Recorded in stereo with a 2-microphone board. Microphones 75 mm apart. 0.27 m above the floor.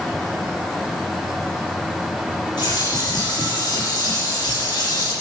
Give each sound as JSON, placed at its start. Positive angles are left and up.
{"t": 2.6, "sound": "a bird", "side_deg": 75, "distance_m": 7.0}